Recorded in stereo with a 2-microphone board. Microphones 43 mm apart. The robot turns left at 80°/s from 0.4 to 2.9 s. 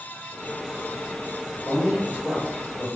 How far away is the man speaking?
About 1.6 m.